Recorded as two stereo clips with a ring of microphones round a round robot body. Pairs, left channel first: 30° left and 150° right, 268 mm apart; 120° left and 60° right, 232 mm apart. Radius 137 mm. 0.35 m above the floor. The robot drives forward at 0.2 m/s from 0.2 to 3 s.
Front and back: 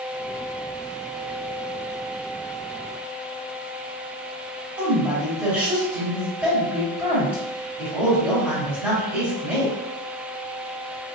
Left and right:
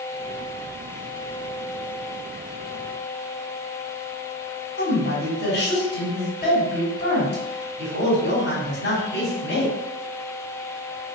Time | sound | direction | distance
4.8 | a woman speaking | 125° left | 1.5 m